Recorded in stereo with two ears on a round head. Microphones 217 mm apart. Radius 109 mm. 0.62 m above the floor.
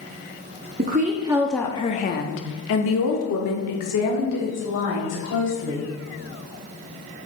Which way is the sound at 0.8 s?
40° right (ahead or behind).